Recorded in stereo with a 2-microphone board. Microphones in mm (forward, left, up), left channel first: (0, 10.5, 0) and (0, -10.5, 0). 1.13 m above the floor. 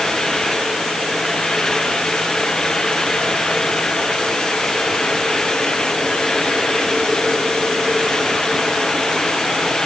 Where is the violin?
No violin in this recording.